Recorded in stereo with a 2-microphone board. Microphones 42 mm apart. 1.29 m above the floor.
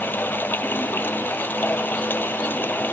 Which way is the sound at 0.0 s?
50° left (ahead or behind).